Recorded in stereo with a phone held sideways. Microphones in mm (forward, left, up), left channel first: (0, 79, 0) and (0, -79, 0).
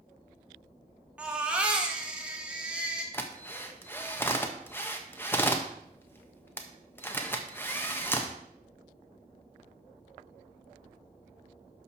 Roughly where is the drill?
Centre.